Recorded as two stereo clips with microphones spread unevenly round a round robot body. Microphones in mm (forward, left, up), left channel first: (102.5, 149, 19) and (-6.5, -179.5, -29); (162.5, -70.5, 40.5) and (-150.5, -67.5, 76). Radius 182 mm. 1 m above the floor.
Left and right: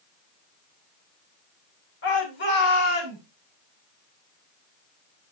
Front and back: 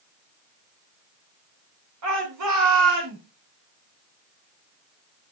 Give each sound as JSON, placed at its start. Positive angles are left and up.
{"t": 2.0, "sound": "a shout", "azimuth_deg": 135, "distance_m": 4.0}